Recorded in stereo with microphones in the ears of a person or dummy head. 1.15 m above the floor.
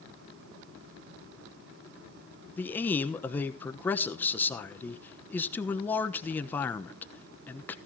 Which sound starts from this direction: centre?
A man speaking, at 2.6 s.